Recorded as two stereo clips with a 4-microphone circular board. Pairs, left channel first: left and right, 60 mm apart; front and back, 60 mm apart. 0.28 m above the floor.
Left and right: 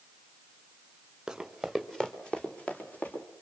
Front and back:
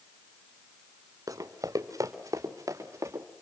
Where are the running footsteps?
170° right, 2.5 m; by 3.2 s 150° left, 4 m.